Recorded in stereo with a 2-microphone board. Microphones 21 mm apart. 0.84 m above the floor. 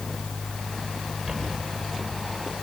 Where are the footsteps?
25° right (ahead or behind), 8.5 m; by 2.5 s 15° right (ahead or behind), 9 m.